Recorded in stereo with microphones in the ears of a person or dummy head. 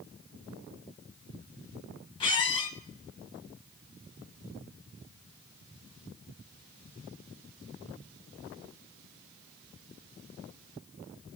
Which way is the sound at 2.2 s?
25° left (ahead or behind).